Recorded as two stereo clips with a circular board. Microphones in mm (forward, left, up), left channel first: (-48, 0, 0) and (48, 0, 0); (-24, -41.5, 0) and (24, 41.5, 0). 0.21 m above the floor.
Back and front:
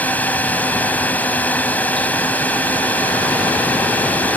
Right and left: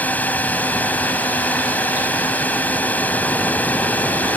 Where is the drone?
150° right.